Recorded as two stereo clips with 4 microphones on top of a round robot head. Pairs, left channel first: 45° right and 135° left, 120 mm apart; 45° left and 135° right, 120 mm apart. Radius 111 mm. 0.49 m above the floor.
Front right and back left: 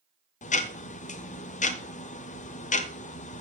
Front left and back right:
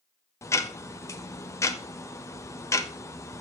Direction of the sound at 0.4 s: 25° right.